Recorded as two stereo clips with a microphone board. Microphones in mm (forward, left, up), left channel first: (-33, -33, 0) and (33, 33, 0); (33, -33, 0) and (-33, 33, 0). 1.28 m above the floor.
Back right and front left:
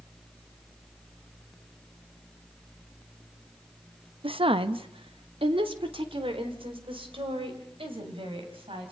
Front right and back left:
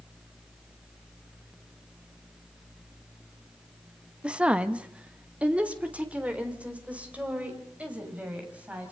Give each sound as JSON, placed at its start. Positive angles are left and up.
{"t": 4.2, "sound": "a woman speaking", "azimuth_deg": 55, "distance_m": 0.9}